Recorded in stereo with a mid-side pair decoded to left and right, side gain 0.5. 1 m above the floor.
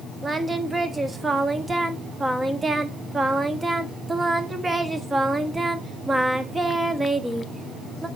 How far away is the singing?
About 1.2 m.